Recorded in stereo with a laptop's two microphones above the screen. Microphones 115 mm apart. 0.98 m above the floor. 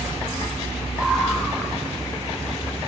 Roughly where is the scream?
Centre.